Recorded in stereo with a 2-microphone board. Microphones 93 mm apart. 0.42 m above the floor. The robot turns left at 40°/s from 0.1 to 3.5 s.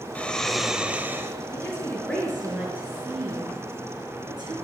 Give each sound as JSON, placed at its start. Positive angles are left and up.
{"t": 0.1, "sound": "snoring", "azimuth_deg": 15, "distance_m": 0.9}
{"t": 1.5, "sound": "a woman speaking", "azimuth_deg": 30, "distance_m": 5.0}